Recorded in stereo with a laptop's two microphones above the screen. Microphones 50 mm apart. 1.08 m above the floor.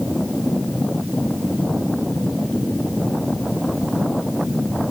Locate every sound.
Only background noise.